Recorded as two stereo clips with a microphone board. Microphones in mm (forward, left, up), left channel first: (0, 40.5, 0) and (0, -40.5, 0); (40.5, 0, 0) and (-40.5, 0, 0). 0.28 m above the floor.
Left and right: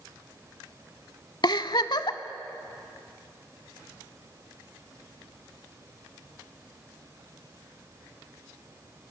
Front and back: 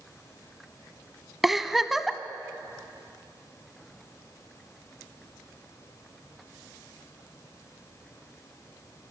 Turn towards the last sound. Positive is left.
turn(degrees=95)